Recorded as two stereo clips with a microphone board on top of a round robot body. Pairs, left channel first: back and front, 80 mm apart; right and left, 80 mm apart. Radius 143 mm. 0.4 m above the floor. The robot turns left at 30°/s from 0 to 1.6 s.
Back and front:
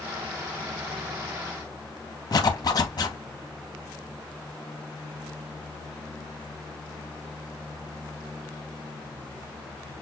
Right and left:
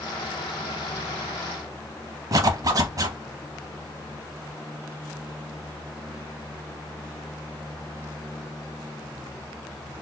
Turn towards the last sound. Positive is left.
turn(degrees=140)